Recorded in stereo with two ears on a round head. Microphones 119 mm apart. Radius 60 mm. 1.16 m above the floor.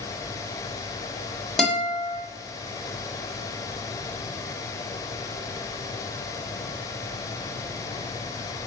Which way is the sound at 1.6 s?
5° left (ahead or behind).